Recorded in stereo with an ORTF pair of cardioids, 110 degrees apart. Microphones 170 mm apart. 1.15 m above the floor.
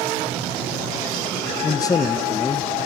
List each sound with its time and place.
1.6 s a man speaking: 20° left, 0.7 m